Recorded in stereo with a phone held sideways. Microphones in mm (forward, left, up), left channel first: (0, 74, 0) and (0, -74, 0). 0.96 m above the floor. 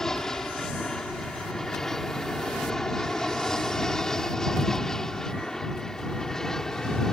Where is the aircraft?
5° left (ahead or behind).